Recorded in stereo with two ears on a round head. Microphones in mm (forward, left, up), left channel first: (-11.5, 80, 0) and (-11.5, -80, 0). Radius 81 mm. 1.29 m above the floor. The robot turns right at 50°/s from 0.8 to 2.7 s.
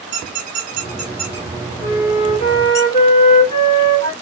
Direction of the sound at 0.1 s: 45° right (ahead or behind).